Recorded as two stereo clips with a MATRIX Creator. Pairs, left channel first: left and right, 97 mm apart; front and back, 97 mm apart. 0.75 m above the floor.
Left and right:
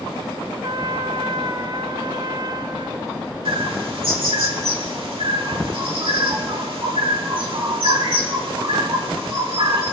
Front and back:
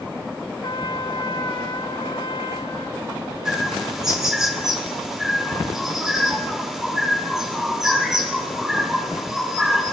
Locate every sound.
0.6 s a trumpet: 40° right, 0.6 m
3.5 s a bird: 95° right, 2 m